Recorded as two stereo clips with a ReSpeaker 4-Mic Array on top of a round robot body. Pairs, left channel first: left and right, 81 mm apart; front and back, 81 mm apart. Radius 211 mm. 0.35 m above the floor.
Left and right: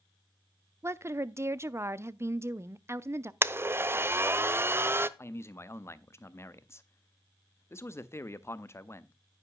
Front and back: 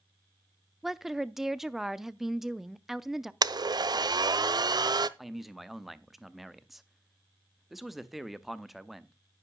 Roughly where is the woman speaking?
Right.